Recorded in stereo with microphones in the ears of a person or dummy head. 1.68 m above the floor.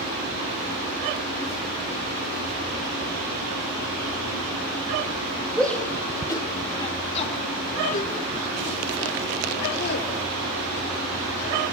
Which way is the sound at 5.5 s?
5° left (ahead or behind).